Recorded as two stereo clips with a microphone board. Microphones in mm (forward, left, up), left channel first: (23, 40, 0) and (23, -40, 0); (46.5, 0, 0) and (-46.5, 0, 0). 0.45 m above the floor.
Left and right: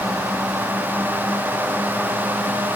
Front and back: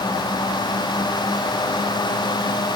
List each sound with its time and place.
Only background noise.